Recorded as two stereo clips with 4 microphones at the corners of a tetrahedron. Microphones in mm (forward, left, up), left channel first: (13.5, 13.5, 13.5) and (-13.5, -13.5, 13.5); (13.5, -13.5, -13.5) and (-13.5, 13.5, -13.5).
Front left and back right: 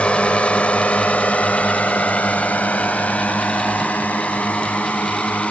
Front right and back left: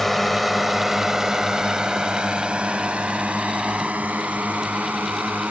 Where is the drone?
35° left; by 5.5 s 95° left.